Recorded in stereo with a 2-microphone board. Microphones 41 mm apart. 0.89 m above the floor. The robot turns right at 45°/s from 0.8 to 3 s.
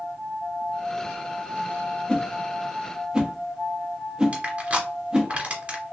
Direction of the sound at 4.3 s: 30° right (ahead or behind).